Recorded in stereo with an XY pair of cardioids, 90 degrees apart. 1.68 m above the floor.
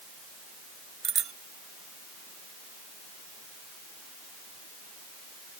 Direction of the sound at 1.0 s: 60° right.